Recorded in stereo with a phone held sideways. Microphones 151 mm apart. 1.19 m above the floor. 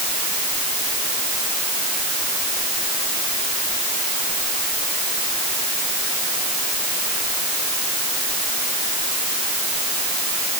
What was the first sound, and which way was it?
Only background noise.